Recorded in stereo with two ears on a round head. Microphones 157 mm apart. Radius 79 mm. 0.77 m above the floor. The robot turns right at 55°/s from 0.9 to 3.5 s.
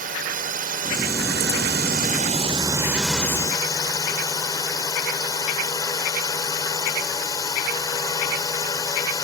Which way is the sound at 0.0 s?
120° right.